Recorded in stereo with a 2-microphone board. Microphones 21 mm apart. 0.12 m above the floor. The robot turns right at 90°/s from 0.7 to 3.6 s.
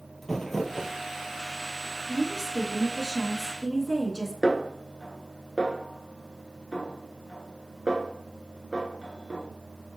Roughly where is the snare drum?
Centre.